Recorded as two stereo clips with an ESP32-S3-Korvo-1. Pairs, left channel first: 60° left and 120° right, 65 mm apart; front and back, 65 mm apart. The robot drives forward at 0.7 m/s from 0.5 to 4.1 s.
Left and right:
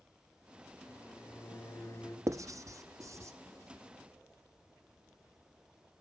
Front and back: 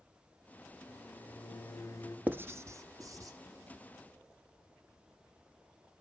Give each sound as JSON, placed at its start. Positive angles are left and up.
{"t": 0.9, "sound": "a microwave", "azimuth_deg": 25, "distance_m": 2.5}
{"t": 2.3, "sound": "writing", "azimuth_deg": -125, "distance_m": 0.6}